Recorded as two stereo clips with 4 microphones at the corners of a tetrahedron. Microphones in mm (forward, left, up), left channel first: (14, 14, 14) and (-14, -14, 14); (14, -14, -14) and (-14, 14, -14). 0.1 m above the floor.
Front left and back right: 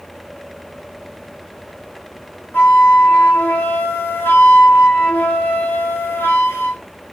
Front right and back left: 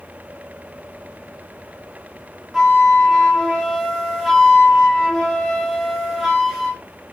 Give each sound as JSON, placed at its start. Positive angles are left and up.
{"t": 2.5, "sound": "a flute", "azimuth_deg": 50, "distance_m": 3.5}